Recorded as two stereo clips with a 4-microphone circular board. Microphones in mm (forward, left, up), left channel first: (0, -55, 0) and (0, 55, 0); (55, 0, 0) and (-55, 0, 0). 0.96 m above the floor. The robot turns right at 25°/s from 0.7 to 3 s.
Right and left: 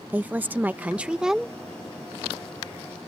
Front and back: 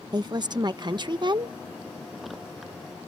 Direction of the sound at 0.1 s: 160° left.